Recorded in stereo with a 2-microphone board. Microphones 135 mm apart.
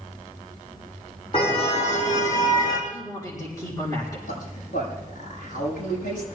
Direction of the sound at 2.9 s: 25° left (ahead or behind).